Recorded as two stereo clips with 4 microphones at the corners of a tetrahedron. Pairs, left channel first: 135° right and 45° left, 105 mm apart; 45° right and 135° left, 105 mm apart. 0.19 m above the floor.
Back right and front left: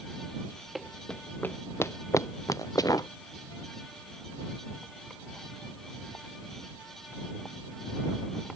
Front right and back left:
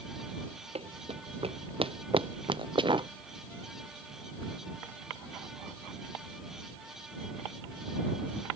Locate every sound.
0.8 s running footsteps: 135° left; by 3.1 s 170° left